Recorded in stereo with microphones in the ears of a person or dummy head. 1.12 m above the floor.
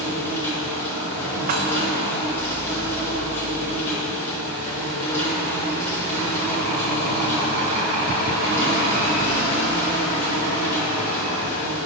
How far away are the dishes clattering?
About 0.7 m.